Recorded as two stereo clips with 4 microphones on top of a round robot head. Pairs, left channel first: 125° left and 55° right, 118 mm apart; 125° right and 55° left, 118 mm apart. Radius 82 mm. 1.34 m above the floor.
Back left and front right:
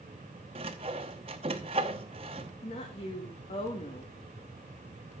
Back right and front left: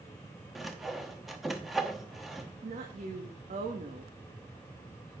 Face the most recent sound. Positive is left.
turn(degrees=85)